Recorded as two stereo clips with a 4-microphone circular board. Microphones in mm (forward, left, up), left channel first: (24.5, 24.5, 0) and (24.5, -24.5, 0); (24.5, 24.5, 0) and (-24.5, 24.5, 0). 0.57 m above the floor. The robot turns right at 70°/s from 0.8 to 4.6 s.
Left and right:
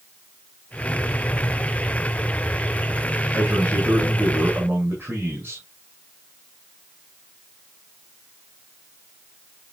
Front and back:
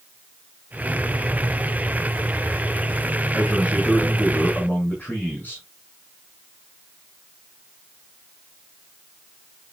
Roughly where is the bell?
No bell in this recording.